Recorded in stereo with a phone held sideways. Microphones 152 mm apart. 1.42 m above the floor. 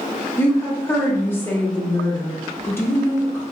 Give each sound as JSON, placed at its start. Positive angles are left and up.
{"t": 0.4, "sound": "a woman speaking", "side_deg": 15, "distance_m": 0.5}